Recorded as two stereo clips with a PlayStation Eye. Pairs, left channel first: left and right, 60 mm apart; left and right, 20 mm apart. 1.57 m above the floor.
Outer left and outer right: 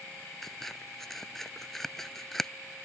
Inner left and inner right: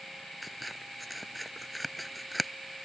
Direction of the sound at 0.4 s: 5° left (ahead or behind).